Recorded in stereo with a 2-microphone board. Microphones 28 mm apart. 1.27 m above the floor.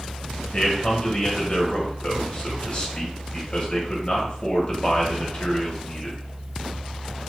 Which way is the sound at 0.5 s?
35° left (ahead or behind).